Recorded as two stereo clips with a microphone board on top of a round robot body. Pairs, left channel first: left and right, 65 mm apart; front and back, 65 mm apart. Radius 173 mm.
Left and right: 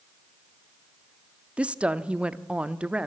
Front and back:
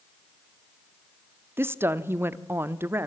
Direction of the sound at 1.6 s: 150° right.